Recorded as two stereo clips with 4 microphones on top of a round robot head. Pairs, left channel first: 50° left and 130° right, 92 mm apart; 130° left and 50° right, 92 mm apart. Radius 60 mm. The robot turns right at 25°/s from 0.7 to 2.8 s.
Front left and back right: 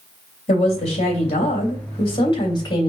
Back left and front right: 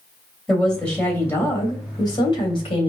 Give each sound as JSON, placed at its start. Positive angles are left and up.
{"t": 0.5, "sound": "a woman speaking", "azimuth_deg": 45, "distance_m": 3.0}